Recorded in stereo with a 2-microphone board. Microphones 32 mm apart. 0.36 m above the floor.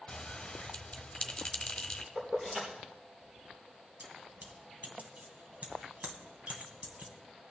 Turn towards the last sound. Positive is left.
turn(degrees=-50)  # may be behind; listen again after turning